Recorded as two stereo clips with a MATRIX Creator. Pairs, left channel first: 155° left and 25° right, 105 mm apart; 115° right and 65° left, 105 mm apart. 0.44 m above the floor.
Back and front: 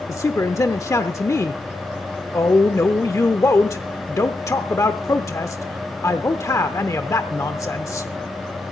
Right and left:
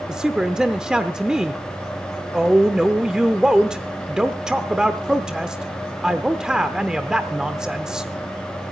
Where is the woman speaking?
145° left, 0.8 m.